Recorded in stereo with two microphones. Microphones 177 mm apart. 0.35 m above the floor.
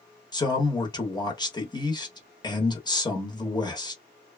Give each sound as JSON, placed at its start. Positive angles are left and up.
{"t": 0.3, "sound": "a man speaking", "side_deg": 20, "distance_m": 0.9}